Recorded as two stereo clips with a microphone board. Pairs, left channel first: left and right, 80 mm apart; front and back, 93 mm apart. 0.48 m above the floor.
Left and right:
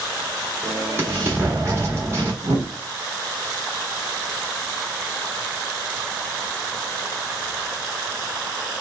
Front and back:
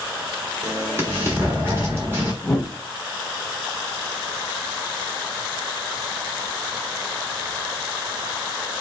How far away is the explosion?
About 1.3 m.